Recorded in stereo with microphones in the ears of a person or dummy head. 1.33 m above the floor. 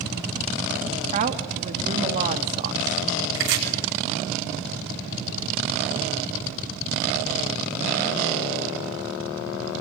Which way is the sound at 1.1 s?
40° right (ahead or behind).